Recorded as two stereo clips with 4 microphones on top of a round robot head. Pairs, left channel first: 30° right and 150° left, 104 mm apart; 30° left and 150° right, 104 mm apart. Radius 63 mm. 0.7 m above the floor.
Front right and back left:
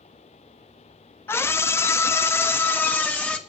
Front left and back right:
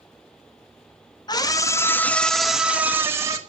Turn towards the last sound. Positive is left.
turn(degrees=-105)